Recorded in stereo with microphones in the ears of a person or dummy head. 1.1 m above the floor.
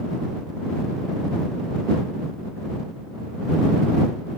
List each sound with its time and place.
Only background noise.